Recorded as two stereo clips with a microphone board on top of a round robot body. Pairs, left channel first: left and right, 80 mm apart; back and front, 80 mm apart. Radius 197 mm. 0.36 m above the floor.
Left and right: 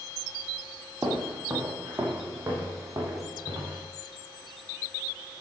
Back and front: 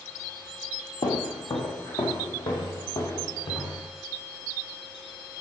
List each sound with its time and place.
1.0 s footsteps: 170° right, 1.3 m; by 3.9 s 150° right, 2.5 m